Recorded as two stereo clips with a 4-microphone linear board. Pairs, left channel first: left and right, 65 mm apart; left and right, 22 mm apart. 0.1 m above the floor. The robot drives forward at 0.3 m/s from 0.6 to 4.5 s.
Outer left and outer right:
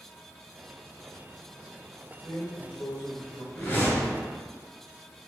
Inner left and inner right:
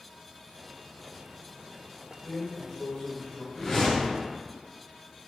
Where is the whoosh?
20° left (ahead or behind), 1.4 m.